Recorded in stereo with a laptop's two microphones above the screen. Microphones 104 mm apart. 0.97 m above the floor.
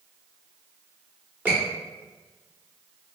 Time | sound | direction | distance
1.4 | a squeak | 20° right (ahead or behind) | 0.9 m